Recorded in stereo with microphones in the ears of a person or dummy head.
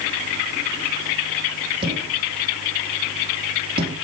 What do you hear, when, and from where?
1.8 s a thud: 30° right (ahead or behind), 5.5 m